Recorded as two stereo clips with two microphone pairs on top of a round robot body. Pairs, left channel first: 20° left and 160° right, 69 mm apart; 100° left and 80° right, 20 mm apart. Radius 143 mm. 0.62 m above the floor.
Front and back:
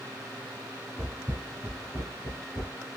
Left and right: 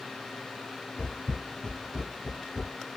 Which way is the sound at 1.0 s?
100° left.